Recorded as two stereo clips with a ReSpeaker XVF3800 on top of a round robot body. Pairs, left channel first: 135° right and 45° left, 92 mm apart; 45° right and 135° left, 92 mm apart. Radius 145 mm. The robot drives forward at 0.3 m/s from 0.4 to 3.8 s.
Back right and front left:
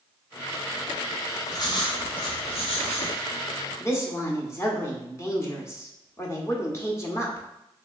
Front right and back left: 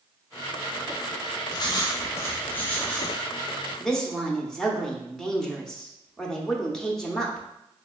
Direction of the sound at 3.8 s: 125° right.